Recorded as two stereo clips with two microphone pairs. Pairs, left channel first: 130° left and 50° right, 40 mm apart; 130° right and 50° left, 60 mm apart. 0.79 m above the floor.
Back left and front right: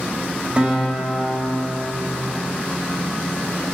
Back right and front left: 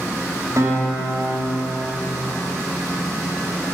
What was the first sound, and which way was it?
A guitar, 15° left.